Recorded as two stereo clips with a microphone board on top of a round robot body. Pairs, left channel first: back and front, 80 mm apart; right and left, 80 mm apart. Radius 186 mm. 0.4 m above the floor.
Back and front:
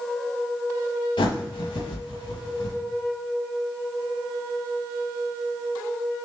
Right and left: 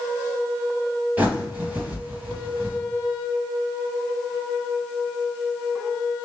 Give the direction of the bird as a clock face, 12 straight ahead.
7 o'clock.